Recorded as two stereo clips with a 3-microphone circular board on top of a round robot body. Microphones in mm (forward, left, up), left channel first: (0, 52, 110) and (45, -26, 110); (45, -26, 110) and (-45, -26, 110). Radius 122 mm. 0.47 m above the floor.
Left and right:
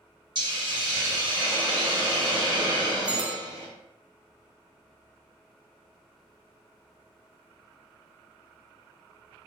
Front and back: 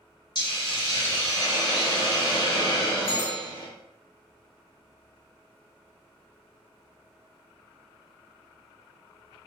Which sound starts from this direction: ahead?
A bell, at 3.1 s.